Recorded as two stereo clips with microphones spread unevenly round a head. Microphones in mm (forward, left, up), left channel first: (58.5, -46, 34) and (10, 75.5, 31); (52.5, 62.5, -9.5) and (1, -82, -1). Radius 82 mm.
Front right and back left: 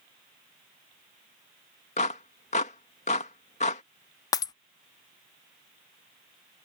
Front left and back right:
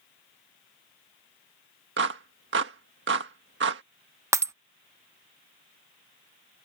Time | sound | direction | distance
2.0 | a clap | 115° right | ?
4.3 | breaking glass | 80° right | ?